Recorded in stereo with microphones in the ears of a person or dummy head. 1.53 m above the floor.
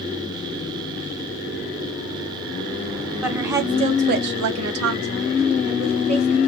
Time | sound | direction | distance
3.2 | a woman speaking | centre (ahead or behind) | 0.9 m